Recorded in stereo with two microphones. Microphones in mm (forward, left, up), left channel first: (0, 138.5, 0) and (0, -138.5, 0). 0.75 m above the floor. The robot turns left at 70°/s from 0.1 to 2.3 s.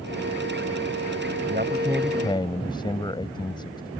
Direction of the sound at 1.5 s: 140° right.